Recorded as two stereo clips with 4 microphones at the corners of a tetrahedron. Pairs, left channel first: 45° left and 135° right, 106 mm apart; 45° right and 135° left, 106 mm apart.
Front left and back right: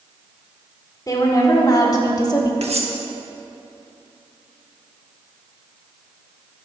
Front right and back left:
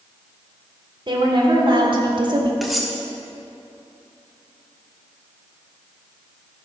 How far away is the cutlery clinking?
About 1.1 m.